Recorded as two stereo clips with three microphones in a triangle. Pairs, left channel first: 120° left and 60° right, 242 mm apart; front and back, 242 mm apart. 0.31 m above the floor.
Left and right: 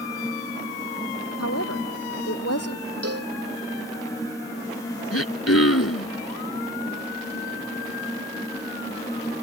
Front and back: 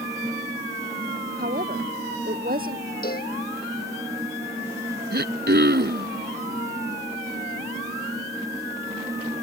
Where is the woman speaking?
130° left.